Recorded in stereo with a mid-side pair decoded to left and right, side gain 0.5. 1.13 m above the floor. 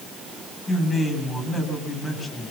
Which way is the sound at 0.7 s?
25° left.